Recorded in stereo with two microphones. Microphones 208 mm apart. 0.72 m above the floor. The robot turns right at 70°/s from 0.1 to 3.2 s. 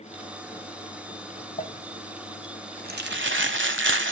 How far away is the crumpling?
About 1.3 m.